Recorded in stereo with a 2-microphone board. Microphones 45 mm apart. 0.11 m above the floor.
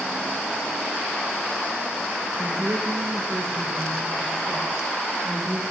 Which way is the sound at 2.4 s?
75° right (ahead or behind).